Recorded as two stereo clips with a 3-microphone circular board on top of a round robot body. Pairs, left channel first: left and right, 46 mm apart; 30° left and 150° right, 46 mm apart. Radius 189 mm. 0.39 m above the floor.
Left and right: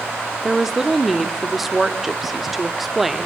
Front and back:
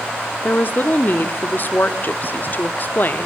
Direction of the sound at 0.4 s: 5° right.